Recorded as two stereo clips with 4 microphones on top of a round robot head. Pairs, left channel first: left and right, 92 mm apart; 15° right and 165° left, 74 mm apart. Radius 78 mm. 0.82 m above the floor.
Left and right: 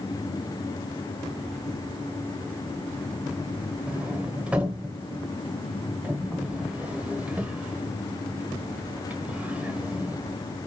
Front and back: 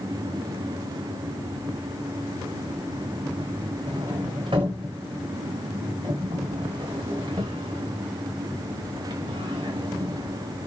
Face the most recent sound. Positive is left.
turn(degrees=-165)